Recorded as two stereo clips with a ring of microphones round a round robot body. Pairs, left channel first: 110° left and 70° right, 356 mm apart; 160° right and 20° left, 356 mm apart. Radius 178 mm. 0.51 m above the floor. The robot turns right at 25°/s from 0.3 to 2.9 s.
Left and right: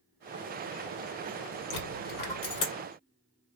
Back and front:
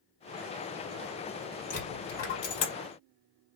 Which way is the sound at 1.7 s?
135° left.